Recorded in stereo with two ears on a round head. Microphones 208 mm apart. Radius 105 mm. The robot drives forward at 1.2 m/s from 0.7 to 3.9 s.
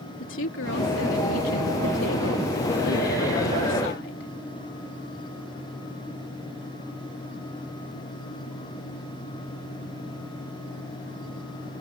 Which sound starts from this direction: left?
A woman speaking, at 0.2 s.